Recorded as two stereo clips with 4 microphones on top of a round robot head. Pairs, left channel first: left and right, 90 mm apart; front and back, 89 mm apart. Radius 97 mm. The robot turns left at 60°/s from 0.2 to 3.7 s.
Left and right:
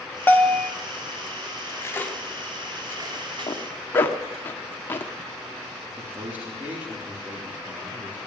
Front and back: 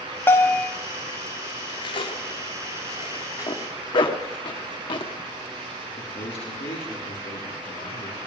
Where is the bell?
45° left, 1.1 m; by 0.7 s 20° left, 1.1 m.